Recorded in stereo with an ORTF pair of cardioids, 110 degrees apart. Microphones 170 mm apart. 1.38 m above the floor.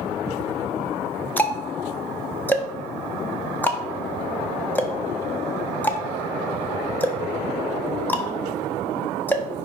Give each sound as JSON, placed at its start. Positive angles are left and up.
{"t": 1.4, "sound": "ticking", "azimuth_deg": 10, "distance_m": 1.0}